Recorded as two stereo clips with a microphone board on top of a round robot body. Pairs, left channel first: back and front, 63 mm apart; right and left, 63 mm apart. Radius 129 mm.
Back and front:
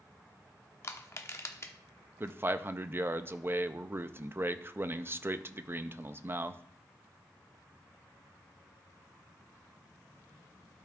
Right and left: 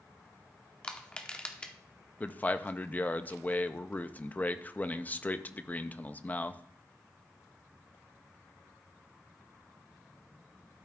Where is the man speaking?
35° right, 0.6 m.